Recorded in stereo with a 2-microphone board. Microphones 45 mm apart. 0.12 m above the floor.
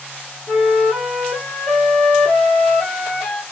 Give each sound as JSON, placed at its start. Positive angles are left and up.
{"t": 0.5, "sound": "a flute", "side_deg": 10, "distance_m": 2.0}